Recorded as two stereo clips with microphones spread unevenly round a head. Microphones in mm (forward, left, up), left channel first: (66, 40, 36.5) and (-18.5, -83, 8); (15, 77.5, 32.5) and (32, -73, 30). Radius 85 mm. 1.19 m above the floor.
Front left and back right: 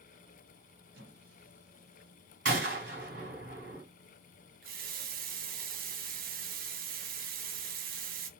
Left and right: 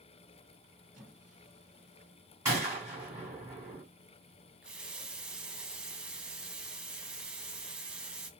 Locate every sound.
0.9 s a squeak: 165° right, 2.5 m
2.5 s a gunshot: 160° right, 2 m
4.6 s a running tap: 170° right, 0.5 m